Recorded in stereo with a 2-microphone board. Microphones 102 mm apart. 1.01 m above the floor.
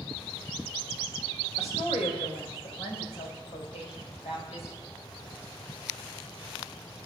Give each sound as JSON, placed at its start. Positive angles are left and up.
{"t": 1.6, "sound": "a woman speaking", "side_deg": 80, "distance_m": 4.5}